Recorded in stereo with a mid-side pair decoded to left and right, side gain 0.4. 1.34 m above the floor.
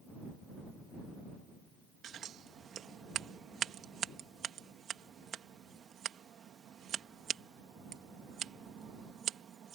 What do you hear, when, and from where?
2.0 s scissors: 65° right